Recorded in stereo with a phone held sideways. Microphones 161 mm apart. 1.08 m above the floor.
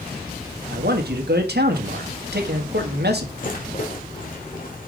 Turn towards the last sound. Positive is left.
turn(degrees=55)  # may be behind; listen again after turning